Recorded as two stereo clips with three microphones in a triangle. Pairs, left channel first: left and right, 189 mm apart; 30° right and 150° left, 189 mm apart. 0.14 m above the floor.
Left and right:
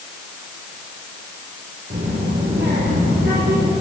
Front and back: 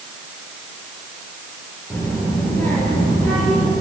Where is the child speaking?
110° right, 9 m.